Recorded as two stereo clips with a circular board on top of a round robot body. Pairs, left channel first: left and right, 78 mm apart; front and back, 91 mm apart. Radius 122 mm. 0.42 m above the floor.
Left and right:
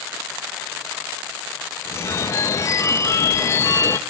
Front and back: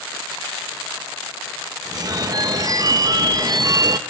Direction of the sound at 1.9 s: 140° left.